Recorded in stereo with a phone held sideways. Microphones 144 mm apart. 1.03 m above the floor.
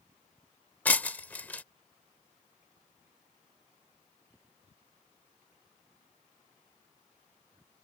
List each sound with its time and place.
0.8 s breaking glass: 10° left (ahead or behind)